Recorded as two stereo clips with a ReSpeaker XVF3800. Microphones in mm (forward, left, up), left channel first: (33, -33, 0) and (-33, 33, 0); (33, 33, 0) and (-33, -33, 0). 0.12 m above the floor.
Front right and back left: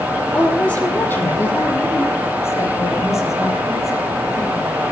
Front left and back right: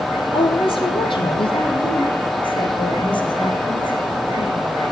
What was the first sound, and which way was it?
A woman speaking, 35° left.